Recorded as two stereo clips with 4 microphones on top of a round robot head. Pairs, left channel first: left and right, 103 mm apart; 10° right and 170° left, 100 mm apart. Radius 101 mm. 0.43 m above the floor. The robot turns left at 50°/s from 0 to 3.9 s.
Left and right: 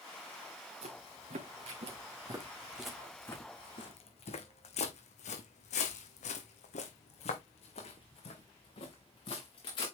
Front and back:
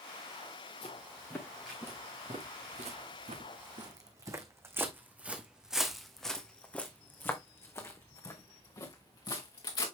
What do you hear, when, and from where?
0.8 s footsteps: 55° right, 3 m; by 9.8 s 35° left, 3 m